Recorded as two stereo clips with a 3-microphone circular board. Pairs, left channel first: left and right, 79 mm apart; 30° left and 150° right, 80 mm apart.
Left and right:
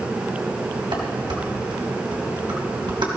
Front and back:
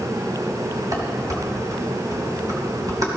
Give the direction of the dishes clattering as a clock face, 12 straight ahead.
3 o'clock.